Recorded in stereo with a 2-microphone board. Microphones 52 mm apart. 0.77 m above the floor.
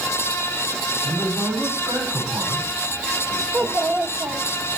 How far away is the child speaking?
About 1.5 m.